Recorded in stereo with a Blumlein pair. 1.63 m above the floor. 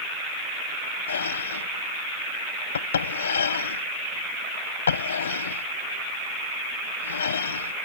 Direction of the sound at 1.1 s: 65° left.